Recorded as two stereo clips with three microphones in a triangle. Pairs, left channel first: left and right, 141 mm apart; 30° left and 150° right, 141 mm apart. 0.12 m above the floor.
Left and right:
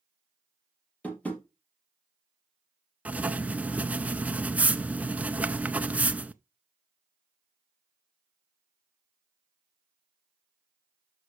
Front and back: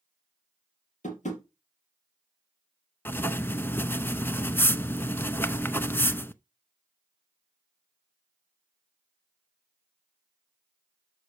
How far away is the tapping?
About 3 m.